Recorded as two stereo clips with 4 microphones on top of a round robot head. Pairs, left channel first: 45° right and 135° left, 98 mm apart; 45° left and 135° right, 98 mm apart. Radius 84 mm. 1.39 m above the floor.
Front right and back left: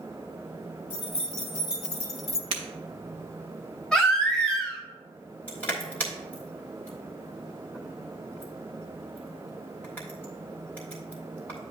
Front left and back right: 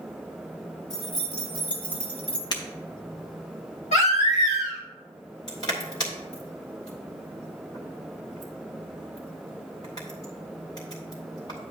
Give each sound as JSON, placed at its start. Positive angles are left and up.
{"t": 0.9, "sound": "keys jangling", "azimuth_deg": -30, "distance_m": 2.0}
{"t": 2.5, "sound": "breaking glass", "azimuth_deg": 95, "distance_m": 0.9}
{"t": 3.9, "sound": "a baby crying", "azimuth_deg": 35, "distance_m": 1.7}
{"t": 5.5, "sound": "crushing", "azimuth_deg": 15, "distance_m": 1.2}